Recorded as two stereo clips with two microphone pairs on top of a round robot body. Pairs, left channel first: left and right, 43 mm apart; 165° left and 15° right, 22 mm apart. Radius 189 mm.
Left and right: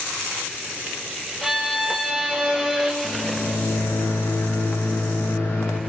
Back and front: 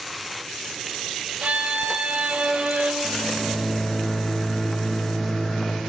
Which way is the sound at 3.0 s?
115° left.